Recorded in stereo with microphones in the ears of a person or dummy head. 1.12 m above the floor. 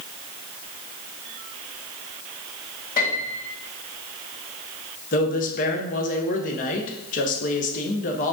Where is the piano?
45° left (ahead or behind), 2 m.